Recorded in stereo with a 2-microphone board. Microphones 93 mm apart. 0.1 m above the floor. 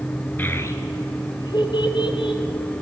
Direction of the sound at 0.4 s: 20° left (ahead or behind).